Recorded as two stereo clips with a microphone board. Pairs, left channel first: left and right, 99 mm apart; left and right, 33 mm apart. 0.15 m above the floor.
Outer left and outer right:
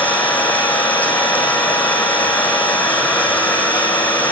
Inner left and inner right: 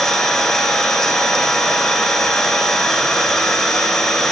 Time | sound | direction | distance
0.0 | an engine running | 15° left (ahead or behind) | 7.5 m